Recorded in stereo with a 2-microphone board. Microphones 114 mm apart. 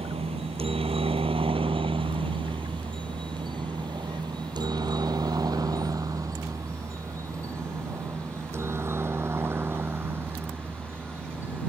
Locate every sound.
0.0 s a helicopter: 60° right (ahead or behind); by 11.7 s 15° right (ahead or behind)